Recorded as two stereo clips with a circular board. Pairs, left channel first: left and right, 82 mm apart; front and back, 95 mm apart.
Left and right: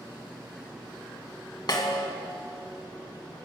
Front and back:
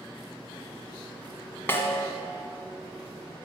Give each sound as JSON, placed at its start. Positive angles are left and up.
{"t": 1.7, "sound": "a snare drum", "azimuth_deg": 65, "distance_m": 1.9}